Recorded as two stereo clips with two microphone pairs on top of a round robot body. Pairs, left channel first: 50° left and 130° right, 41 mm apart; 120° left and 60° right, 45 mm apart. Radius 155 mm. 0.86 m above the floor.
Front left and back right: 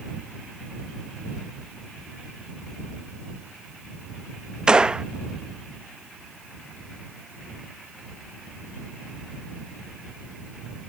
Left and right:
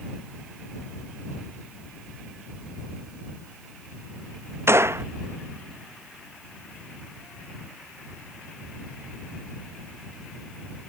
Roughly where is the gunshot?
Ahead right.